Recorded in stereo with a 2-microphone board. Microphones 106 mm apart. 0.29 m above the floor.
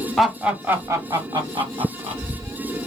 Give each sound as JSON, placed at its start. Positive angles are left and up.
{"t": 0.2, "sound": "laughter", "side_deg": 0, "distance_m": 1.2}